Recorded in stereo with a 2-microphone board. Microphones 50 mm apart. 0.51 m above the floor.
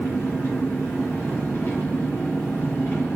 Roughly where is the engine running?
Left.